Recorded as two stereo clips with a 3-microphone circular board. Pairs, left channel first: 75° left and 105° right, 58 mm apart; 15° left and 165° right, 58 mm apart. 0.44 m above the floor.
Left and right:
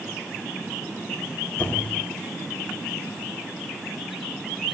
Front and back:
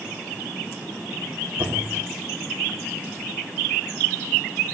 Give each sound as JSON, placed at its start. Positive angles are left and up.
{"t": 1.6, "sound": "a squeak", "azimuth_deg": 135, "distance_m": 0.6}